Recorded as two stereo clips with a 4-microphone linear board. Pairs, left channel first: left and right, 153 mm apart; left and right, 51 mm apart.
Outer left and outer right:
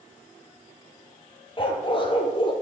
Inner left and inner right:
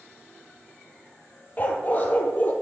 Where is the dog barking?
35° left (ahead or behind), 0.9 m.